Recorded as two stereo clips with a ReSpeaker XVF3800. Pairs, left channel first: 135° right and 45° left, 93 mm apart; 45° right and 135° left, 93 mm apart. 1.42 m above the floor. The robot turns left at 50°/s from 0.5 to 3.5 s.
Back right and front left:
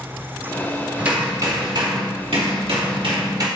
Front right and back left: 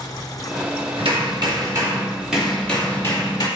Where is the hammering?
120° left, 2.5 m; by 3.5 s straight ahead, 2.5 m.